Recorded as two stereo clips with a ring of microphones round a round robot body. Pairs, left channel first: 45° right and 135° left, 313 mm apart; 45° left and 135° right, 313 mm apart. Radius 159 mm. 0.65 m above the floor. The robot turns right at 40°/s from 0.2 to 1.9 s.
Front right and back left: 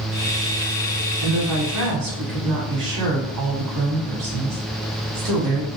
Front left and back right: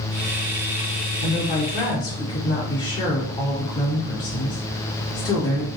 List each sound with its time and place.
1.2 s a woman speaking: 95° left, 2.5 m; by 5.7 s 120° left, 2.5 m